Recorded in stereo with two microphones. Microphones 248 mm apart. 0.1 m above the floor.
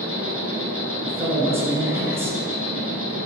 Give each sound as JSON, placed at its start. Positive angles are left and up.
{"t": 0.0, "sound": "an insect", "side_deg": -60, "distance_m": 1.4}
{"t": 1.1, "sound": "a man speaking", "side_deg": -10, "distance_m": 1.2}